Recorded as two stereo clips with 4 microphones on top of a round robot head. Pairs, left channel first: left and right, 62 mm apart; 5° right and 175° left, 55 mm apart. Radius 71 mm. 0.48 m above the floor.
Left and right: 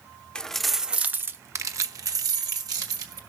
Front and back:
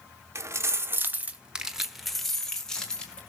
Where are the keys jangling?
165° left, 1.0 m; by 3.2 s 80° right, 2.5 m.